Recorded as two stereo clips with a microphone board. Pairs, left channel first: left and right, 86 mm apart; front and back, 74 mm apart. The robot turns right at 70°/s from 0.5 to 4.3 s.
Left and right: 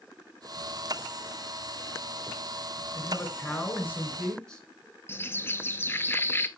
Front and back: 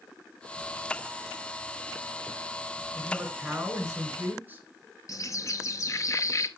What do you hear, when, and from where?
2.9 s a man speaking: 60° left, 1.8 m; by 4.7 s 160° left, 1.8 m
5.1 s a bird: 30° left, 0.5 m